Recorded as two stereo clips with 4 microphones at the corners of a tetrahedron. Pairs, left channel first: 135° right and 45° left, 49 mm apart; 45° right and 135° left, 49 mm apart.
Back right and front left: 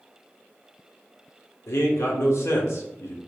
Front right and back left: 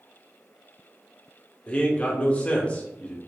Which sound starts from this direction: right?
A man speaking, at 1.7 s.